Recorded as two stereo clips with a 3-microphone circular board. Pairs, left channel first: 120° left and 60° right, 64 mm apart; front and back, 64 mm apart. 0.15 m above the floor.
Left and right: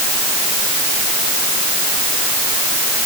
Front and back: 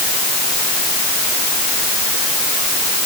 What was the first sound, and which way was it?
Only background noise.